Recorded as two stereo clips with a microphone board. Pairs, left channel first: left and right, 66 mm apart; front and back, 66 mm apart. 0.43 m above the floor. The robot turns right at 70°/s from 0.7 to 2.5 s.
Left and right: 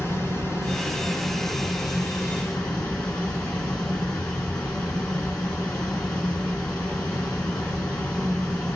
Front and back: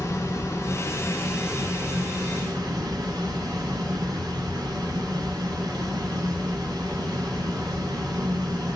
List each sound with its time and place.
0.0 s running water: 35° left, 2.5 m; by 8.8 s 165° left, 2.5 m